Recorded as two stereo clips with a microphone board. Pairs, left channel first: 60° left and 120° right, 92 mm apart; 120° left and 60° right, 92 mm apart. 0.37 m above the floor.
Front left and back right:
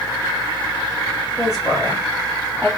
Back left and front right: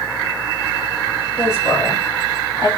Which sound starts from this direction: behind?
A woman speaking, at 1.4 s.